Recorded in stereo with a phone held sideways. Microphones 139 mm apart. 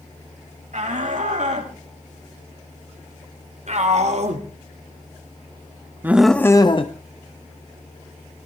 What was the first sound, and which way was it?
A shout, 70° right (ahead or behind).